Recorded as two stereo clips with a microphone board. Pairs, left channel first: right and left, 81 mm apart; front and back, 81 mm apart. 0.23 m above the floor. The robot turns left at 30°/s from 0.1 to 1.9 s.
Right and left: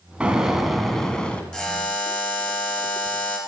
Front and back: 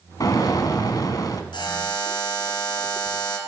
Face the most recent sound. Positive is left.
turn(degrees=-25)